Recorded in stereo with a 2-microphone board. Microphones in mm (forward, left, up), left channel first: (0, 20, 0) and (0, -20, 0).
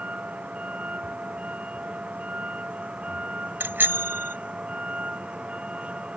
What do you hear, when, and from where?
0.0 s a vehicle: 30° right (ahead or behind); by 6.2 s 25° right (ahead or behind)
3.6 s a bicycle bell: 55° right (ahead or behind)